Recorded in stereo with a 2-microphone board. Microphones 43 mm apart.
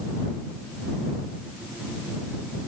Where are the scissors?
No scissors in this recording.